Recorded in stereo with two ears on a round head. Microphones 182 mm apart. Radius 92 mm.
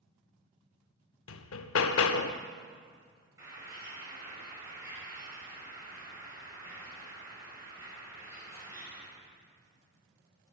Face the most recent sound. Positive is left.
turn(degrees=-15)  # may be behind; listen again after turning